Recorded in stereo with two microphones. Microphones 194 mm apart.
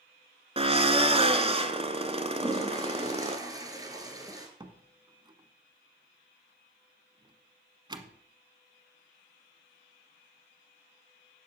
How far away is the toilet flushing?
About 2.5 m.